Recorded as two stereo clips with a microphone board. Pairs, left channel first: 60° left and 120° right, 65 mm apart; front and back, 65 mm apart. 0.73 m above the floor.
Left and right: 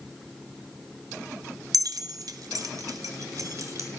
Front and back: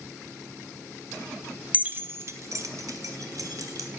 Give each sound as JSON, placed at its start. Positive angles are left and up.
{"t": 1.7, "sound": "keys jangling", "azimuth_deg": -115, "distance_m": 0.6}